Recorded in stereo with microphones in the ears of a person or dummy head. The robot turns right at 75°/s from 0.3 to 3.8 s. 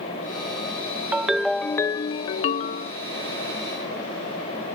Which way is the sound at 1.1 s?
10° right (ahead or behind).